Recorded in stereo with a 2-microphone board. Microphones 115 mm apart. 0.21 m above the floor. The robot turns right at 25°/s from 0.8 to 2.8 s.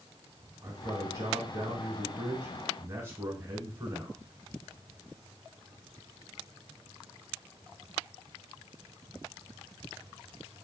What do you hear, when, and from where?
0.6 s a man speaking: 30° right (ahead or behind), 1.2 m; by 4.2 s 20° right (ahead or behind), 1.2 m